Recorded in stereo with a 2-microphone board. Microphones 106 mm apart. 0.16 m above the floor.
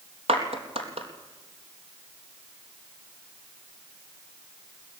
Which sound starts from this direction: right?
A clap, at 0.3 s.